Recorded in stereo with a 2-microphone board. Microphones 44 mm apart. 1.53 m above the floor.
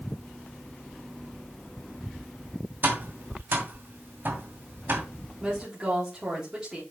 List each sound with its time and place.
2.8 s tapping: 50° right (ahead or behind), 2 m
5.4 s a woman speaking: 20° right (ahead or behind), 3.5 m